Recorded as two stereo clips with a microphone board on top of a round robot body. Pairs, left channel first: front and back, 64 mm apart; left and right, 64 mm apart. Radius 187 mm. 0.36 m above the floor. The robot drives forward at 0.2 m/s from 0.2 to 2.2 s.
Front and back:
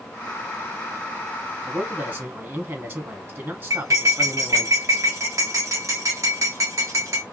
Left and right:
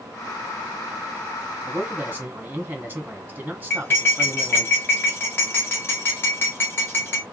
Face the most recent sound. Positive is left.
turn(degrees=145)